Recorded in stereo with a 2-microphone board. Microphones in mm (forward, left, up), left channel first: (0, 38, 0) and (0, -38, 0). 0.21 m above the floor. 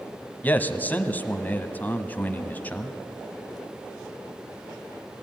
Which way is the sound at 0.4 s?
20° left (ahead or behind).